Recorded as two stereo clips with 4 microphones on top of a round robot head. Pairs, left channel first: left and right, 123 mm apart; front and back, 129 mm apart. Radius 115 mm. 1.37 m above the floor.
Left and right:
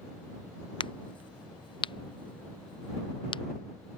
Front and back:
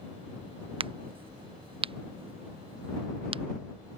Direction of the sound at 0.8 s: 135° left.